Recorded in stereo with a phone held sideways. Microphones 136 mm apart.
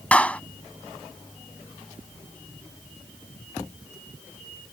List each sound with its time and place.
0.1 s a clap: 10° left (ahead or behind)